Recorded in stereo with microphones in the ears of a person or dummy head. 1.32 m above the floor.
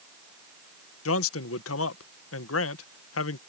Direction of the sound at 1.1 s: 70° left (ahead or behind).